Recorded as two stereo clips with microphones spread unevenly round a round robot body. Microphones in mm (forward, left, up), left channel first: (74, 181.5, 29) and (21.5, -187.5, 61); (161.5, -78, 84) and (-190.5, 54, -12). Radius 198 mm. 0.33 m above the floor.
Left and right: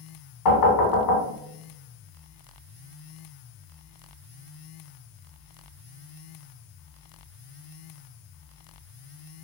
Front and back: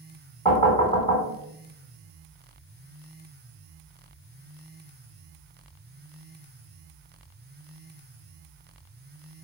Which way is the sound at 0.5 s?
70° left.